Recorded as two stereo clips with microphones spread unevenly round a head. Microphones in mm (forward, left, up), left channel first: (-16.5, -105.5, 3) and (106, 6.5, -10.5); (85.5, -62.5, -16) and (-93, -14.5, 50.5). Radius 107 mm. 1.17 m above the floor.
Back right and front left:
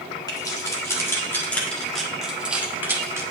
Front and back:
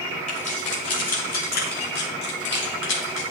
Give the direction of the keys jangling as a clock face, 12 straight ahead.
2 o'clock.